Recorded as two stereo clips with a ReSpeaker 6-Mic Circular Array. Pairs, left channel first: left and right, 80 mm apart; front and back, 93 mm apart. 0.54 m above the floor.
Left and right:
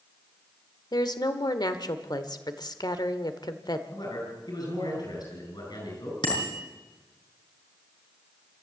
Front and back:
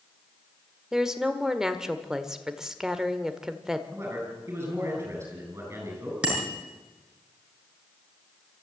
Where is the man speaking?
120° left, 9 m.